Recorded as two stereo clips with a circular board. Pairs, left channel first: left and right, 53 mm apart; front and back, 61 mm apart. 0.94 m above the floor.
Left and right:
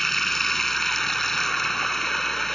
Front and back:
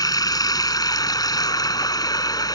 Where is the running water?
5° left.